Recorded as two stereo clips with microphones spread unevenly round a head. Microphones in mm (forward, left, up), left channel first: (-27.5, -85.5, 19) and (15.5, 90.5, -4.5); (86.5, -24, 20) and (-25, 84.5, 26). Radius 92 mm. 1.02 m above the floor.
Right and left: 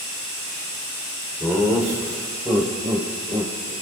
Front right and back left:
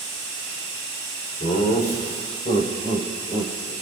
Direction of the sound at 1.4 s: 5° right.